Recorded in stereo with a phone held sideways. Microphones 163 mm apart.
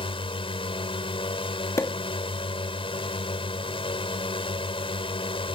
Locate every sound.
0.0 s a drone: 35° left (ahead or behind)
1.8 s a pop: 20° left (ahead or behind)